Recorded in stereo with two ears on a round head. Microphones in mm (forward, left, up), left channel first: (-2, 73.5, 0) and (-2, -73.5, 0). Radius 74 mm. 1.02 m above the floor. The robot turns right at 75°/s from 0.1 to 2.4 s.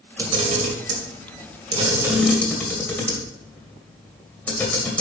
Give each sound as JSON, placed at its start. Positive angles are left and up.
{"t": 0.2, "sound": "a camera shutter", "side_deg": -25, "distance_m": 2.0}